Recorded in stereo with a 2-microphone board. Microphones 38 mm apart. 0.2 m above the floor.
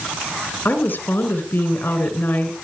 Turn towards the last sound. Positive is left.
turn(degrees=60)  # may be behind; listen again after turning